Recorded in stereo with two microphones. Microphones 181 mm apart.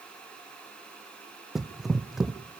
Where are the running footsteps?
Centre (ahead or behind), 0.9 m.